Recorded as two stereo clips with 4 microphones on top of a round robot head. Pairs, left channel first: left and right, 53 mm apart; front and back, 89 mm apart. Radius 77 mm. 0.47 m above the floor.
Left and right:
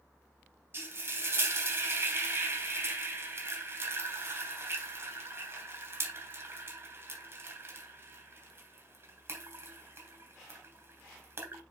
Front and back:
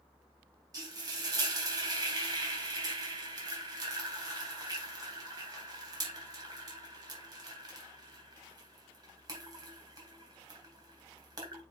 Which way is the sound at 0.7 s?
130° right.